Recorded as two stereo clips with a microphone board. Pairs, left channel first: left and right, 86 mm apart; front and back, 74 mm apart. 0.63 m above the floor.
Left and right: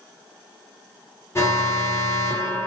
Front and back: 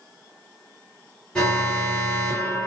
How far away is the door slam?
I don't hear a door slam.